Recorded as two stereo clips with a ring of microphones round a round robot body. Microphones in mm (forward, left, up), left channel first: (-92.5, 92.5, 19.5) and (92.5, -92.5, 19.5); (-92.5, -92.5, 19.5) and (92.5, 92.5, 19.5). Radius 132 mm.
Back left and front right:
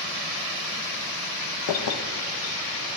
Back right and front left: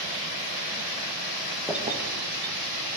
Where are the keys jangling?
140° left, 0.5 m; by 2.9 s 65° left, 1.9 m.